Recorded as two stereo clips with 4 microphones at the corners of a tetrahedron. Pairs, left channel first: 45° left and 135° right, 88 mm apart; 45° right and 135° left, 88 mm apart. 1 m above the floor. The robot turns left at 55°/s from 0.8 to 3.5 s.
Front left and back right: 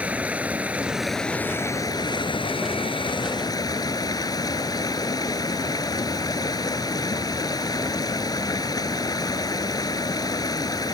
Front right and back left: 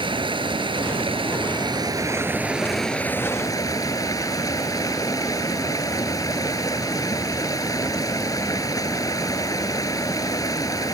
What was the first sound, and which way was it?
Running water, 150° left.